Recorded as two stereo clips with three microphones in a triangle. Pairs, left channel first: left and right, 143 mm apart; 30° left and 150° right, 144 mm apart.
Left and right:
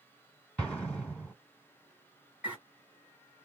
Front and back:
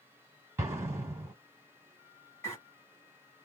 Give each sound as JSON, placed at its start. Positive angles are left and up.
{"t": 0.6, "sound": "an explosion", "azimuth_deg": 165, "distance_m": 1.7}
{"t": 2.4, "sound": "a bird", "azimuth_deg": -20, "distance_m": 1.7}